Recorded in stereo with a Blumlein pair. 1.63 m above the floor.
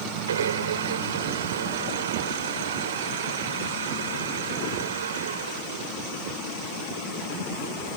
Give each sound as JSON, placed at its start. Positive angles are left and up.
{"t": 0.3, "sound": "a blender", "azimuth_deg": -65}